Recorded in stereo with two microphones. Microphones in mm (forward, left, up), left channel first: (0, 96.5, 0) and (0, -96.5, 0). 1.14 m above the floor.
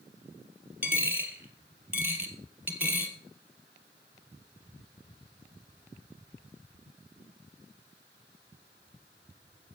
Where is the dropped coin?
10° right (ahead or behind), 2 m.